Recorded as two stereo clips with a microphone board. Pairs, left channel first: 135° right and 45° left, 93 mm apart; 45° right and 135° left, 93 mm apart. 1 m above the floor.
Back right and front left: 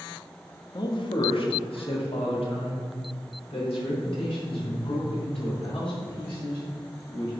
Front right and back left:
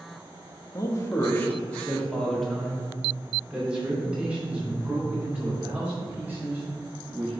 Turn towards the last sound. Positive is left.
turn(degrees=-155)